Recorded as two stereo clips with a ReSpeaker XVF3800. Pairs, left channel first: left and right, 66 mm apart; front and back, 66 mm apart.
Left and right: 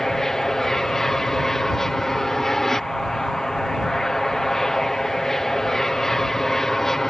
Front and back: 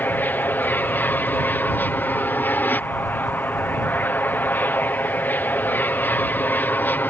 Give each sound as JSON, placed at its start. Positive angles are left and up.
{"t": 0.0, "sound": "an aircraft", "azimuth_deg": 15}